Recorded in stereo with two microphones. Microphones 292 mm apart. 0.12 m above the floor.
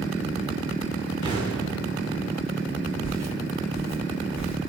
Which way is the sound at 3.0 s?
65° right (ahead or behind).